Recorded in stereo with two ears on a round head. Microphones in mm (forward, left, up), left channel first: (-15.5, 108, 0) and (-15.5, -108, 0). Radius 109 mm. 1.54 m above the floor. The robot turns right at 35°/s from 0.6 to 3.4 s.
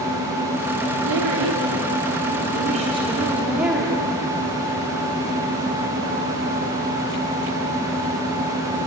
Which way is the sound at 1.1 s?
85° right.